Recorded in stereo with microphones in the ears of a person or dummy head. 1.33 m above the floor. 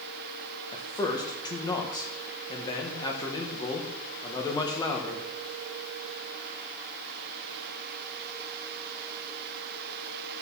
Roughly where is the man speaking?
Left.